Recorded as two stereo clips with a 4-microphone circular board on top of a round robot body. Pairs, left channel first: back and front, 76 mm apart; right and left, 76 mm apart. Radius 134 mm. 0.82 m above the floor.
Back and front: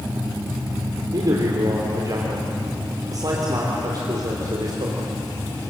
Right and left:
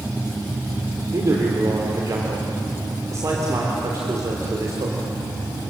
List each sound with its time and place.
1.1 s a man speaking: 40° left, 3.5 m